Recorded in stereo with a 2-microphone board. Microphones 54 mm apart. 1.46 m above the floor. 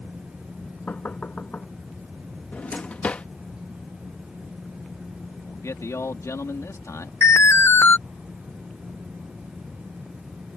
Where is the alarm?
55° left (ahead or behind).